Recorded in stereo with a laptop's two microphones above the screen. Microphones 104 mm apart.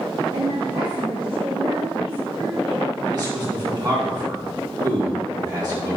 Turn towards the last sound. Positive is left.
turn(degrees=-40)  # may be behind; listen again after turning